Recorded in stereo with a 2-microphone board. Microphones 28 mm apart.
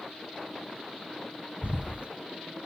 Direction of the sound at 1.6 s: 50° right (ahead or behind).